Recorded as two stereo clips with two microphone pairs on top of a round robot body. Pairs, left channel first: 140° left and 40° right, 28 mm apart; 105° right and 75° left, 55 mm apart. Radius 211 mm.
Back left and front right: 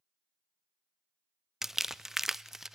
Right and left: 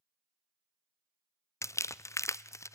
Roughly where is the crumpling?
Behind right.